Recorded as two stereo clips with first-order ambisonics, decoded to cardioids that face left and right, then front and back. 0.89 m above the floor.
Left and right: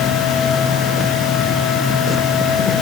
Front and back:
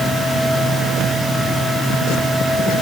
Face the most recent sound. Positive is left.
No sound to turn to.